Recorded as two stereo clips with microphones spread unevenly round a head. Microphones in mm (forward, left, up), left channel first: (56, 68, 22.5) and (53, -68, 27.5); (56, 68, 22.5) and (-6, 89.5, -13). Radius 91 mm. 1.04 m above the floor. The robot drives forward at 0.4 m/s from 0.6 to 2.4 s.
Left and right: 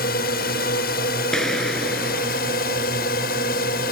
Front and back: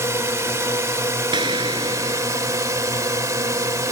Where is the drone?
110° left; by 3.9 s 115° left.